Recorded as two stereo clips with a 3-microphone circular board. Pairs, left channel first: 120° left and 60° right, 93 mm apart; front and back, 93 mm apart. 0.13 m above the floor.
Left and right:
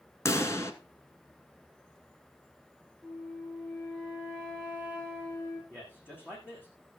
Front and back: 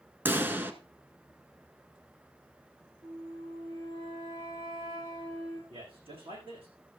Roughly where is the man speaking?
Behind.